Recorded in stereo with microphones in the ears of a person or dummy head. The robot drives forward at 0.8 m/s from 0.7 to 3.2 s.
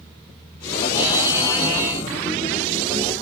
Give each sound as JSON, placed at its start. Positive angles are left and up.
{"t": 1.0, "sound": "a buzzer", "side_deg": -10, "distance_m": 1.3}